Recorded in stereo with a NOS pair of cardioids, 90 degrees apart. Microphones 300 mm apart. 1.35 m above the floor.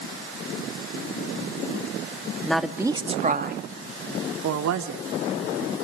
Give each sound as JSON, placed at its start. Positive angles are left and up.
{"t": 2.4, "sound": "a woman speaking", "azimuth_deg": 5, "distance_m": 2.0}